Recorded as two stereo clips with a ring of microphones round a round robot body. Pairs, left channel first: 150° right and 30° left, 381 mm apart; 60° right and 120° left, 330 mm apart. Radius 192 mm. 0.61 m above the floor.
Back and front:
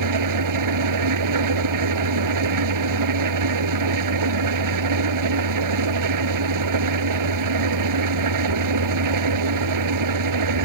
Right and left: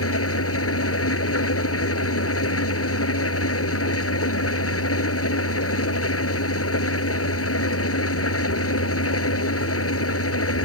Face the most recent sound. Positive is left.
turn(degrees=-15)